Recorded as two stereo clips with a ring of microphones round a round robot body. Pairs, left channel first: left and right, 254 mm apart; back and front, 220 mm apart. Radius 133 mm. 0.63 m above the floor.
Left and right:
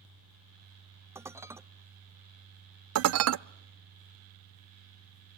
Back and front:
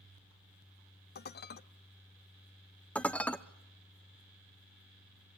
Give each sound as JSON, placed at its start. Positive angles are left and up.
{"t": 1.1, "sound": "dishes clattering", "azimuth_deg": -165, "distance_m": 0.6}
{"t": 3.0, "sound": "dishes clattering", "azimuth_deg": -95, "distance_m": 0.5}